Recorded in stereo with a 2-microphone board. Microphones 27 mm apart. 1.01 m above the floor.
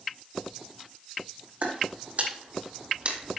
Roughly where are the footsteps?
Right.